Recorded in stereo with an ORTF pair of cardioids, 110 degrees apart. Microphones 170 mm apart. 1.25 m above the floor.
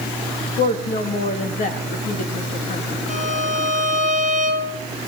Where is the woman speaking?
50° left, 2.5 m.